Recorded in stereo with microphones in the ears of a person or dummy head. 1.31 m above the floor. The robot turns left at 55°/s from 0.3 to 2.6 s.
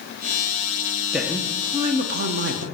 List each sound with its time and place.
1.1 s a woman speaking: 5° right, 1.1 m; by 2.6 s 85° right, 1.1 m